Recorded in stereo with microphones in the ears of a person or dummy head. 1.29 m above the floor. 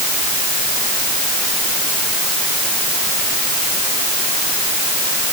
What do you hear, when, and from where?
Only background noise.